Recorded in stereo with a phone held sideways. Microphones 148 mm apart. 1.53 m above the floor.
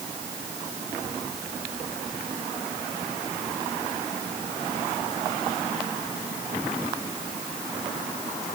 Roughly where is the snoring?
No snoring in this recording.